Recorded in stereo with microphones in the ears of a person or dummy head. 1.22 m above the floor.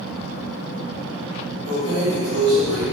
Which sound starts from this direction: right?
Keys jangling, at 1.6 s.